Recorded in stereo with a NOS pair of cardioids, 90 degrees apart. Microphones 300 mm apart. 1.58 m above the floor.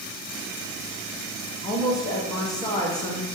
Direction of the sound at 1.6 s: 10° left.